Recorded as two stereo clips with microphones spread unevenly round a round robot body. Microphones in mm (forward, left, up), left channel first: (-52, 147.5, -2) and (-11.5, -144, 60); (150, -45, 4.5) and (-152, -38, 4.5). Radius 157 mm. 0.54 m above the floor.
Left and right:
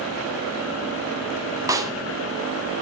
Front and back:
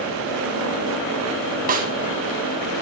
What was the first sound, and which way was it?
A snare drum, 175° right.